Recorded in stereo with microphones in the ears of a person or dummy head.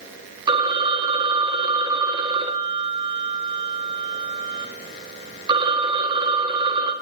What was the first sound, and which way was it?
A phone ringing, 20° right (ahead or behind).